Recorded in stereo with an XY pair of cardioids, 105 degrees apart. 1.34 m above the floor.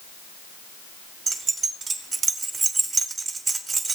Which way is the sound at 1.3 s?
40° right.